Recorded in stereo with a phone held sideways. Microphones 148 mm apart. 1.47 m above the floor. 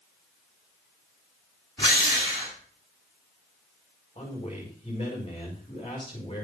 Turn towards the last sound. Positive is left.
turn(degrees=35)  # may be behind; listen again after turning